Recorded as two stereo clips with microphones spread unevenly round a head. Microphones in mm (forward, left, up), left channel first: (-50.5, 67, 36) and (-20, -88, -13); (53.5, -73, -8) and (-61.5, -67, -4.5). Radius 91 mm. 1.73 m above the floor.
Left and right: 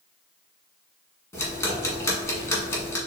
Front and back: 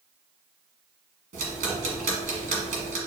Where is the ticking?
175° left, 1.5 m.